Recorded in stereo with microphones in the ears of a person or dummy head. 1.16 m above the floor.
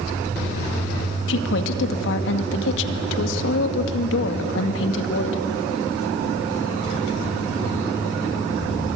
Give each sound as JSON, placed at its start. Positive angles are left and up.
{"t": 1.3, "sound": "a woman speaking", "side_deg": 70, "distance_m": 2.0}